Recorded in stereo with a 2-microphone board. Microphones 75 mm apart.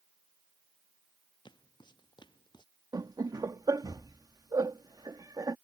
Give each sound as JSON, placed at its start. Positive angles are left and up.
{"t": 1.4, "sound": "footsteps", "side_deg": 85}
{"t": 2.9, "sound": "laughter", "side_deg": -60}